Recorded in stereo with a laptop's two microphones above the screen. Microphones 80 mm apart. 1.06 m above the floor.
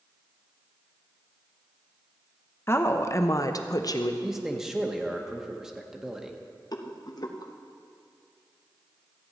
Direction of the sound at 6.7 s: 55° left (ahead or behind).